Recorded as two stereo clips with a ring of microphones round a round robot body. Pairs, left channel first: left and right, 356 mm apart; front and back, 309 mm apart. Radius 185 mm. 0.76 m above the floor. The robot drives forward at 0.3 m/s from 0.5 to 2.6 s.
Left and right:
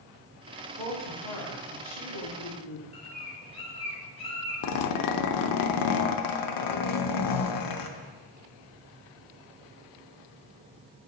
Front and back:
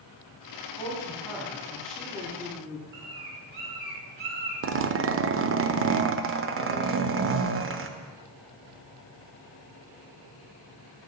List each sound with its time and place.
0.8 s a woman speaking: 80° left, 2 m; by 2.8 s 95° left, 2 m
2.9 s a bird: 165° left, 2 m
4.6 s a zipper: 125° left, 0.6 m